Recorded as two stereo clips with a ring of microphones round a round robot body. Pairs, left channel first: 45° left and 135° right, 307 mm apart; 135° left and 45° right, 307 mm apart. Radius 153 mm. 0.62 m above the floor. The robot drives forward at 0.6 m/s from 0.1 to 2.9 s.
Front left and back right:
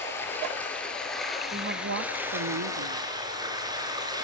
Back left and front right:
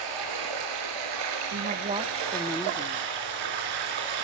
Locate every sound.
0.0 s running water: 40° right, 4.5 m; by 4.3 s 55° right, 3 m
1.5 s a woman speaking: 85° right, 0.8 m; by 3.1 s 145° right, 1.1 m